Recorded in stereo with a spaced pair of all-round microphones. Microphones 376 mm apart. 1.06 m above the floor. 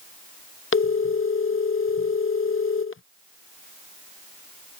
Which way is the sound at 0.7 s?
35° left (ahead or behind).